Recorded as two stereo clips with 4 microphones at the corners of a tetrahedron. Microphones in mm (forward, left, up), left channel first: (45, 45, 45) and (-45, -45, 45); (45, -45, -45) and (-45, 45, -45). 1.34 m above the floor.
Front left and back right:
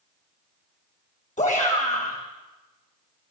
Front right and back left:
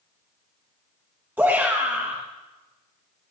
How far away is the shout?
About 1.3 m.